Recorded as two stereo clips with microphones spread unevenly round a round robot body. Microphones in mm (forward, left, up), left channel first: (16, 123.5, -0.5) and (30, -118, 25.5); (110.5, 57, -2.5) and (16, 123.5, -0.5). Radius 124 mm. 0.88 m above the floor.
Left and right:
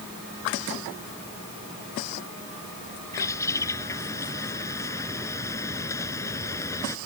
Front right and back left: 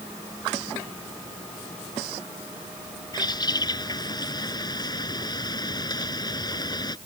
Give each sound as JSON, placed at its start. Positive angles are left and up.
{"t": 3.1, "sound": "a bird", "azimuth_deg": 15}